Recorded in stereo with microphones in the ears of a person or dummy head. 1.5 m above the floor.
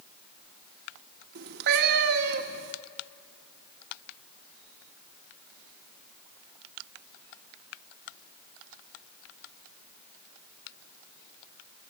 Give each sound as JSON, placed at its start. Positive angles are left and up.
{"t": 1.4, "sound": "a cat meowing", "side_deg": -55, "distance_m": 1.2}